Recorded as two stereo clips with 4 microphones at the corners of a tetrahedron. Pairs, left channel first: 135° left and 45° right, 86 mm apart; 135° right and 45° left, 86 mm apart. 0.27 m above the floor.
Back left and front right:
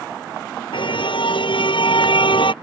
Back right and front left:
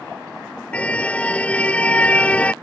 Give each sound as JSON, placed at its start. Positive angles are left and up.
{"t": 0.7, "sound": "a car horn", "azimuth_deg": 150}